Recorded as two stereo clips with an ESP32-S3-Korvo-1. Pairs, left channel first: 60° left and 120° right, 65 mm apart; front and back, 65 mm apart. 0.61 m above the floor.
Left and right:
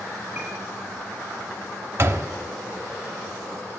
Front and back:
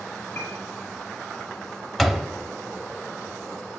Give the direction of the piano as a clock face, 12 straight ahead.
2 o'clock.